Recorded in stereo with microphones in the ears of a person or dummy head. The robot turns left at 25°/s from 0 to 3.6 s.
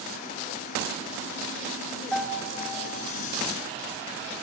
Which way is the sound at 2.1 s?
Centre (ahead or behind).